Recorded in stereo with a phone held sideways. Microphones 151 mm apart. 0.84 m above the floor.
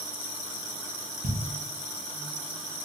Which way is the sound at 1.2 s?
55° right (ahead or behind).